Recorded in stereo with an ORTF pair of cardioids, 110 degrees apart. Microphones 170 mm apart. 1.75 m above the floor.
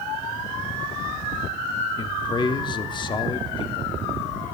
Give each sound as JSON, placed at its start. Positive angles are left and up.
{"t": 2.0, "sound": "a man speaking", "azimuth_deg": 25, "distance_m": 0.7}